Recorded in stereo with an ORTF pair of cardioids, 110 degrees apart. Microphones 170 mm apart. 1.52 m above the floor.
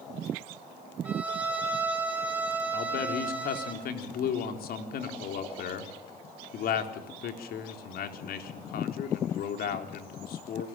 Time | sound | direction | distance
1.1 | a violin | 10° right | 5 m
2.7 | a man speaking | 65° left | 4 m